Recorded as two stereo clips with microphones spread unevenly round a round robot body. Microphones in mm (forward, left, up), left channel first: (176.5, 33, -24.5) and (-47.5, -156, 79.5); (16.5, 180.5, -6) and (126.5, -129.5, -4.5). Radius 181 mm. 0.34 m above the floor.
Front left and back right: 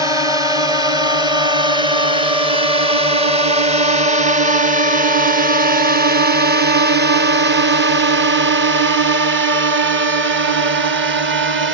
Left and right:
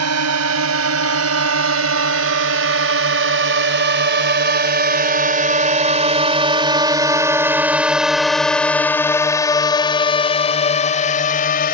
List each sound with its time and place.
0.0 s a drone: 50° right; by 11.7 s 160° left